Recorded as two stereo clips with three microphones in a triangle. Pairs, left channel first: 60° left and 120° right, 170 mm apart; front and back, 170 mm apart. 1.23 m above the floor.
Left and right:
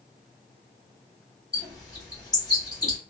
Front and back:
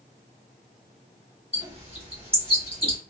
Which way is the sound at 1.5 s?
125° left.